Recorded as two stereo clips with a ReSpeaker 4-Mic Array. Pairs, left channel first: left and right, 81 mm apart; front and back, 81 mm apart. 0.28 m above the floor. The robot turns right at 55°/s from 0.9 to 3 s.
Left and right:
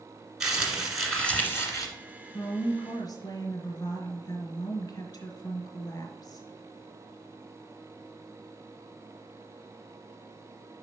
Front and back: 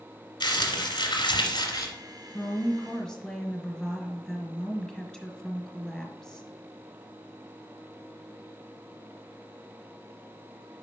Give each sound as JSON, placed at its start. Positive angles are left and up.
{"t": 0.4, "sound": "crumpling", "azimuth_deg": -10, "distance_m": 1.8}
{"t": 2.3, "sound": "a woman speaking", "azimuth_deg": 45, "distance_m": 1.5}